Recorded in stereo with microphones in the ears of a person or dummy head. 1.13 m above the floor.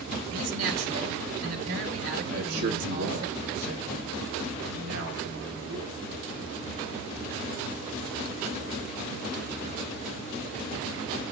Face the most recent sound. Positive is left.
turn(degrees=-70)  # may be behind; listen again after turning